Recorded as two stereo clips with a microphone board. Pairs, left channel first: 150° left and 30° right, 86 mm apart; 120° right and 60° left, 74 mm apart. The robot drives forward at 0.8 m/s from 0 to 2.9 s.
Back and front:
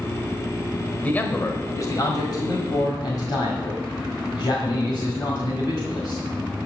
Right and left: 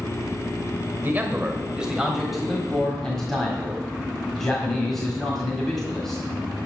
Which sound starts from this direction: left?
A man speaking, at 1.0 s.